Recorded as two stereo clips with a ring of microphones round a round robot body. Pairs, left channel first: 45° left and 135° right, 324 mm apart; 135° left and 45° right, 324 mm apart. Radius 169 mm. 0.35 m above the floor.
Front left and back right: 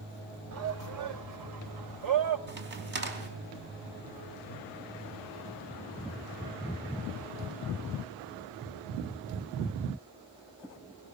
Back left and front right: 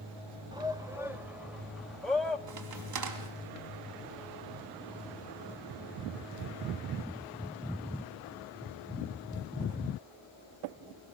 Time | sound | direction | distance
0.5 | a shout | 115° right | 1.2 m
2.5 | a crack | 80° right | 3.5 m